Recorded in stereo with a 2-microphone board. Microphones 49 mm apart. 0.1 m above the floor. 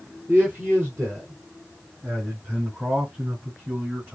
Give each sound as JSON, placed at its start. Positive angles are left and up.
{"t": 0.3, "sound": "a man speaking", "side_deg": -35, "distance_m": 2.0}